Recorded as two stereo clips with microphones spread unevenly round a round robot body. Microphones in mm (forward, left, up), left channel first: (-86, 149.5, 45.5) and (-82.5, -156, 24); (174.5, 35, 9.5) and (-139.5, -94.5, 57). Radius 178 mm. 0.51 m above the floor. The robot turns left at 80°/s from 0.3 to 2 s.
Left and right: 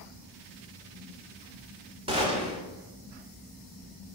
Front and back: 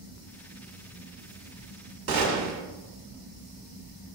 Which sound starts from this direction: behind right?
A gunshot, at 2.1 s.